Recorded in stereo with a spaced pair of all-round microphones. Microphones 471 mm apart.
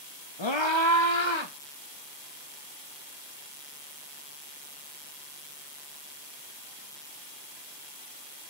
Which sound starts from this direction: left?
A scream, at 0.4 s.